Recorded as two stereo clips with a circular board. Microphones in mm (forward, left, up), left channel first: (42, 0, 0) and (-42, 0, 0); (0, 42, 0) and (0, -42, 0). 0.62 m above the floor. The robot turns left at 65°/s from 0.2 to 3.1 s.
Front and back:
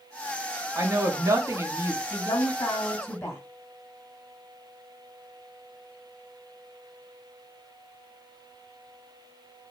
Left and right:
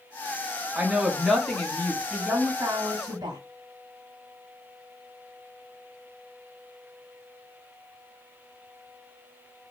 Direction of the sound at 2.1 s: 5° left.